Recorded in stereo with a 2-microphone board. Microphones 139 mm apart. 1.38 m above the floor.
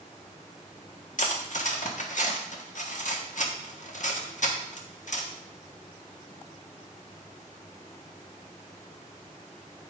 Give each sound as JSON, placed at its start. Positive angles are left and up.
{"t": 1.2, "sound": "cutlery clinking", "side_deg": 65, "distance_m": 1.4}